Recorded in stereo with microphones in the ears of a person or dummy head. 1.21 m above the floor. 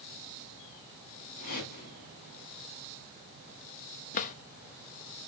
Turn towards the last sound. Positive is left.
turn(degrees=45)  # may be behind; listen again after turning